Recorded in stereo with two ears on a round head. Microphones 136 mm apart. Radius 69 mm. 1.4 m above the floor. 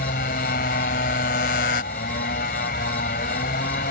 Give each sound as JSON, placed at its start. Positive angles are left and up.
{"t": 0.0, "sound": "a motorcycle", "side_deg": 60}